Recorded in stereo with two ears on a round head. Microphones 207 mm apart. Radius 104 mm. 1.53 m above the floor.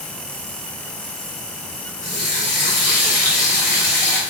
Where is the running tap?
35° left (ahead or behind), 4 m.